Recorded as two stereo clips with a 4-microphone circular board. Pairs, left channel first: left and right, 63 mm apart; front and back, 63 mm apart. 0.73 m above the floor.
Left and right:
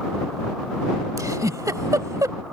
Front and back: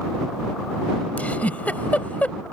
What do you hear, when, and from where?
1.2 s a giggle: 65° right